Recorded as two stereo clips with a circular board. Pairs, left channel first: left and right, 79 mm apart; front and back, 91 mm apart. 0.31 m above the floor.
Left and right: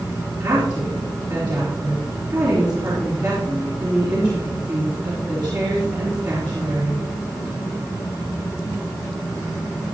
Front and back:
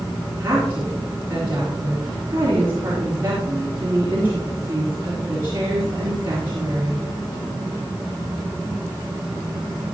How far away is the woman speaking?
About 4.5 m.